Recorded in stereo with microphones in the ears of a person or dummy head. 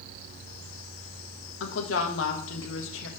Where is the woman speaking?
80° left, 1.5 m.